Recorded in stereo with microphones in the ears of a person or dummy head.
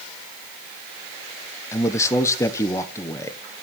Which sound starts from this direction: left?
A man speaking, at 1.7 s.